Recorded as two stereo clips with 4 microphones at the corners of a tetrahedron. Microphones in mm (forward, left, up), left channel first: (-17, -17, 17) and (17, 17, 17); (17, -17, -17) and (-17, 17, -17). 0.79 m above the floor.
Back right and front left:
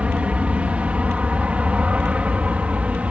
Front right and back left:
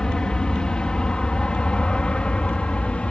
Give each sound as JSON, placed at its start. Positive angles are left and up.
{"t": 0.0, "sound": "an aircraft", "azimuth_deg": 15}